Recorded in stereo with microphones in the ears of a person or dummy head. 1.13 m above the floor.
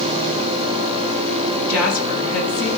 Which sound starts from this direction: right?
A woman speaking, at 1.7 s.